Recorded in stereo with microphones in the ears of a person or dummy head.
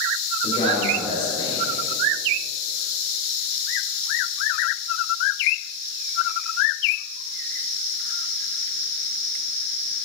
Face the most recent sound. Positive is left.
turn(degrees=25)  # may be behind; listen again after turning